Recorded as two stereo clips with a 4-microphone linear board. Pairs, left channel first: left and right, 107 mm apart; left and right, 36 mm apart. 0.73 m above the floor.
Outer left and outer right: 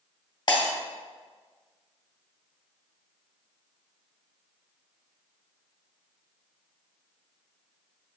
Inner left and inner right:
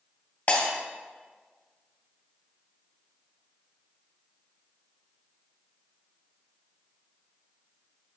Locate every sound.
0.5 s breaking glass: 40° left (ahead or behind), 2 m